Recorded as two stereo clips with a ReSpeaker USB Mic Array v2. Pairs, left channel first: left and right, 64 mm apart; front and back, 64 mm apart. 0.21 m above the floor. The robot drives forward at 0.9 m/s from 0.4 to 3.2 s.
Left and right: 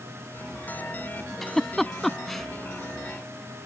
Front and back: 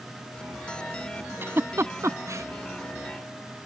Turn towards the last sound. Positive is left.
turn(degrees=175)